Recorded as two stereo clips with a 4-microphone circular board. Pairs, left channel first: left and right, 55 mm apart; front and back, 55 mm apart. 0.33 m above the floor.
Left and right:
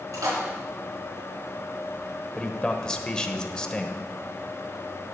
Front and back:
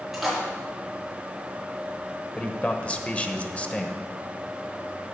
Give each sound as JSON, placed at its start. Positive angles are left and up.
{"t": 0.1, "sound": "a splash", "azimuth_deg": -95, "distance_m": 4.0}
{"t": 2.4, "sound": "a man speaking", "azimuth_deg": 30, "distance_m": 0.9}